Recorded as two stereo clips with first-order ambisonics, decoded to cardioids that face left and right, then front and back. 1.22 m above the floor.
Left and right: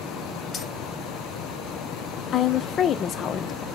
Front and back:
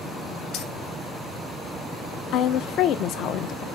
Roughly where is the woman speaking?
Ahead left.